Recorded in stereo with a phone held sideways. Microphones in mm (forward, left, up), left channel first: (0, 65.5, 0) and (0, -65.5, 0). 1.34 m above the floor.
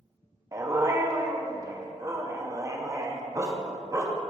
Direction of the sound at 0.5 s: 25° right (ahead or behind).